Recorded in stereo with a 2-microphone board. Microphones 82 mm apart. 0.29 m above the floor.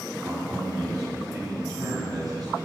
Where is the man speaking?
50° right (ahead or behind), 2 m.